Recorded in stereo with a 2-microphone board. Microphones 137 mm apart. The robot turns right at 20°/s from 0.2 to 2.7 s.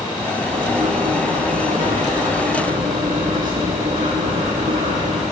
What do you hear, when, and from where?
0.5 s writing: 115° right, 7.5 m; by 5.2 s 70° right, 7.5 m